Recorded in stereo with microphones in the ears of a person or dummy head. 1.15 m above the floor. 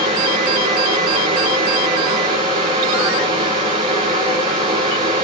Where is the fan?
25° right (ahead or behind), 6.5 m.